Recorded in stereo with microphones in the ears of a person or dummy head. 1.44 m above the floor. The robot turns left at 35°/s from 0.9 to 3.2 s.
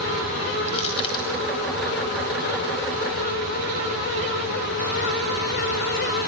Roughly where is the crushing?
Left.